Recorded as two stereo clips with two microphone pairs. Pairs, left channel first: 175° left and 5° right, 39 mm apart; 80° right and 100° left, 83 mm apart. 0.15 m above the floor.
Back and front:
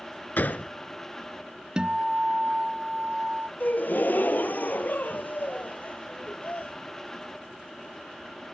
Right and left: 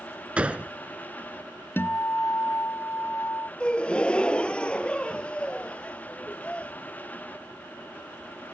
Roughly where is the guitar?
Ahead right.